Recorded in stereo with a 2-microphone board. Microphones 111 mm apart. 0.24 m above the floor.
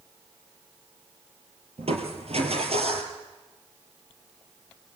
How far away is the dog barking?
No dog barking in this recording.